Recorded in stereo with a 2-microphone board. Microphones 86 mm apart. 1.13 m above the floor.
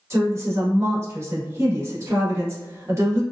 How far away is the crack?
I don't hear a crack.